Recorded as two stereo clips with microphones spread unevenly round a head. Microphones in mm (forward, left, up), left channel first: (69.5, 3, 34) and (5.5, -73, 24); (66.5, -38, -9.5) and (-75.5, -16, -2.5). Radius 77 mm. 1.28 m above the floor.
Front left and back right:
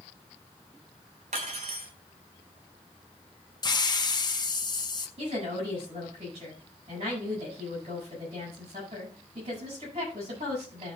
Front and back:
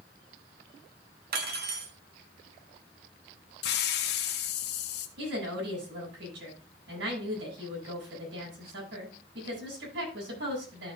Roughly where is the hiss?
Ahead.